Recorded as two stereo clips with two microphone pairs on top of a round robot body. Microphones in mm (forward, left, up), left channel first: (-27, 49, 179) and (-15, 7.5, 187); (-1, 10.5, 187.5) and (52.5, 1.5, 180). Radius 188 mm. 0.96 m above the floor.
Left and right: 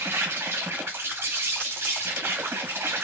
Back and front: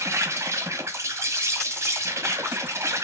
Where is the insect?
45° right, 1.2 m.